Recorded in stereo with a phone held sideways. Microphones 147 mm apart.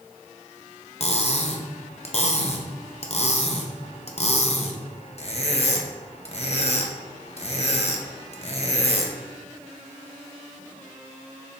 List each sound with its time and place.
1.0 s cutlery clinking: 50° left (ahead or behind), 0.9 m